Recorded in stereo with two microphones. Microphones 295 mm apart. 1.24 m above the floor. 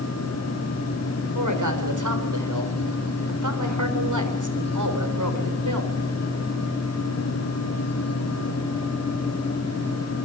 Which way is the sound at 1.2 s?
80° right.